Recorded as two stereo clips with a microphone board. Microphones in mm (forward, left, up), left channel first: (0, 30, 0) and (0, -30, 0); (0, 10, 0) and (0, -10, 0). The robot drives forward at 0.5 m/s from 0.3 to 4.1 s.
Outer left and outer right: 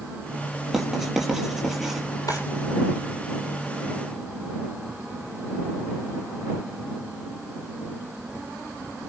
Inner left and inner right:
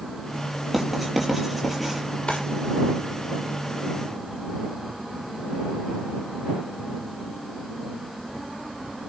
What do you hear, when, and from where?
0.7 s writing: 5° right (ahead or behind), 6 m
2.3 s a drawer: 75° left (ahead or behind), 7.5 m